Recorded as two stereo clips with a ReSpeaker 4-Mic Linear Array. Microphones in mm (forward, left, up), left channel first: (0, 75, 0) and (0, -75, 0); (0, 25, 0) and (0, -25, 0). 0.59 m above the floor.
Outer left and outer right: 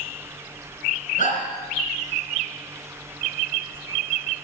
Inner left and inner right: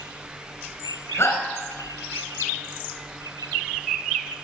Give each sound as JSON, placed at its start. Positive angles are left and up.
{"t": 1.2, "sound": "a shout", "side_deg": 65, "distance_m": 3.5}